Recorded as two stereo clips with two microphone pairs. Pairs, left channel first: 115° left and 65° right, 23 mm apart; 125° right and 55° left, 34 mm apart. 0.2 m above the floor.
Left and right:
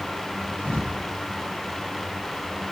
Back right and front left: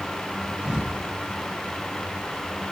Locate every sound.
0.6 s a thud: 125° left, 5 m